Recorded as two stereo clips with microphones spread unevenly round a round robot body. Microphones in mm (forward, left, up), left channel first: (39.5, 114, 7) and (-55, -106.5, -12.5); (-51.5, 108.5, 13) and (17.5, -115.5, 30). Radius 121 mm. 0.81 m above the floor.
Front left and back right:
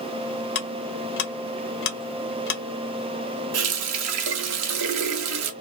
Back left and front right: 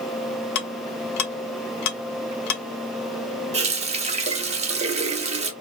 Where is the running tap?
135° right, 0.6 m.